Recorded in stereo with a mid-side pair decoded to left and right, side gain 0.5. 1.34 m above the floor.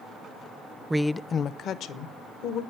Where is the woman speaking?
15° right, 0.6 m; by 2.6 s 80° left, 2 m.